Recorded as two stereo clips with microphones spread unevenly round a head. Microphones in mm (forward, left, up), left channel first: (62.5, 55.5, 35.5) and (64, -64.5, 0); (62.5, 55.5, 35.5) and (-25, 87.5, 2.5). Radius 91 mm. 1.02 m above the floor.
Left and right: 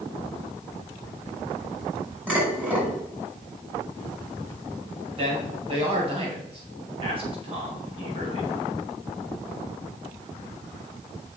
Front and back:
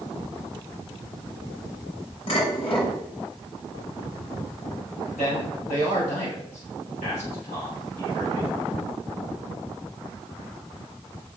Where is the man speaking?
50° right, 6 m.